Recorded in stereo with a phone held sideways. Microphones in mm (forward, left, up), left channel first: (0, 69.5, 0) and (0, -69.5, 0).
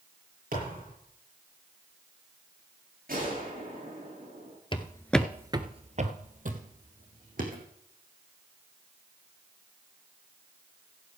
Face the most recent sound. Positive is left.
turn(degrees=-75)  # may be behind; listen again after turning